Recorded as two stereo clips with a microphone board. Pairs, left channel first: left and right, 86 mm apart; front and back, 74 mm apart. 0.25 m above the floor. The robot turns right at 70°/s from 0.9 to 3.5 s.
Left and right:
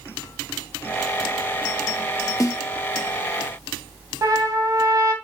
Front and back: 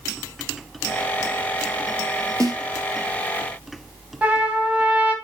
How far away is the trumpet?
About 2.0 m.